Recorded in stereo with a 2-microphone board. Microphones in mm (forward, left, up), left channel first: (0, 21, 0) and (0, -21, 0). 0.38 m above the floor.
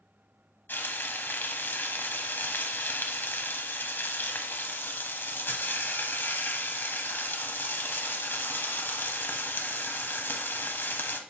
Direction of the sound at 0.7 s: 60° left (ahead or behind).